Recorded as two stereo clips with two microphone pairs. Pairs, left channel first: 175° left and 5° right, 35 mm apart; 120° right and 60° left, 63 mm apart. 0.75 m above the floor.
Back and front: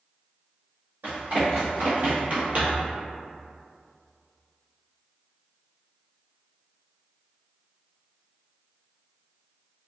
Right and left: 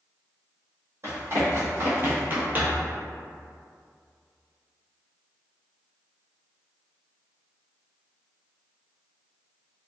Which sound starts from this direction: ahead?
Running footsteps, at 1.0 s.